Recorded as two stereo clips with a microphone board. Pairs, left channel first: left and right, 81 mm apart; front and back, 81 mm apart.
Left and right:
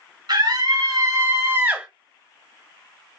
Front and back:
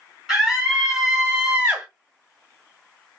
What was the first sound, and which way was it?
A scream, 95° right.